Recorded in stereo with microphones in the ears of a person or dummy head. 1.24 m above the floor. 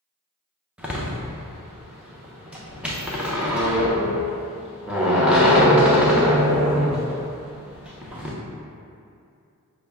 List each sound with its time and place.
0.8 s a door slam: 10° right (ahead or behind), 0.6 m